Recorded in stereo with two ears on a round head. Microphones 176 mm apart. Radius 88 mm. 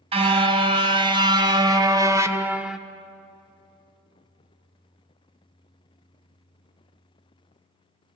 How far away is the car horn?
About 3 m.